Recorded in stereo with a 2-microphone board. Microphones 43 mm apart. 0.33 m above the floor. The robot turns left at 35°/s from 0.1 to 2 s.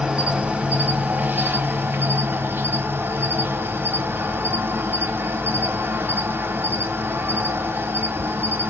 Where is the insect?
25° right, 1.5 m; by 8.7 s 90° right, 1.5 m.